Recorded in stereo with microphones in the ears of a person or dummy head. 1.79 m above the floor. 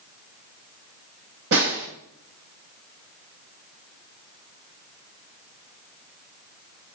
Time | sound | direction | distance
1.5 | a snare drum | 65° right (ahead or behind) | 1.0 m